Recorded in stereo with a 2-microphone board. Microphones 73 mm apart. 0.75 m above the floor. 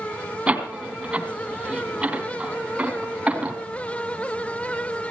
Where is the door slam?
20° right (ahead or behind), 3 m.